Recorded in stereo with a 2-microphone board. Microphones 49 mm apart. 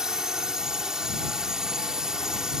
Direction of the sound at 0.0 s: 10° right (ahead or behind).